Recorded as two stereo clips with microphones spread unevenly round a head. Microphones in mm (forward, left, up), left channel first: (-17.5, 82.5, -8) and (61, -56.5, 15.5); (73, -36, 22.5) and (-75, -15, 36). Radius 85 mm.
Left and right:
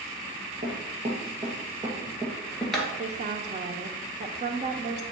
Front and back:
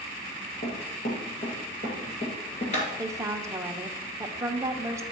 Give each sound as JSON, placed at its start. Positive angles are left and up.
{"t": 0.6, "sound": "running footsteps", "azimuth_deg": -40, "distance_m": 2.0}
{"t": 3.0, "sound": "a woman speaking", "azimuth_deg": -115, "distance_m": 0.8}